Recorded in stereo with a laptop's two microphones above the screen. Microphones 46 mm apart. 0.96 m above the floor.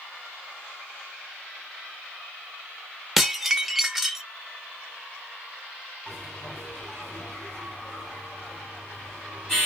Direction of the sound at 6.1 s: 15° left (ahead or behind).